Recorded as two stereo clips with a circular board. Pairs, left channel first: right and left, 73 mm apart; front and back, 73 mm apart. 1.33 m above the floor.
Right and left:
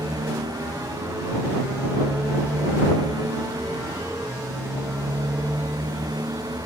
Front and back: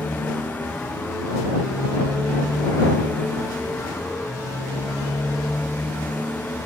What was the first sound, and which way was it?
A motorcycle, 65° left.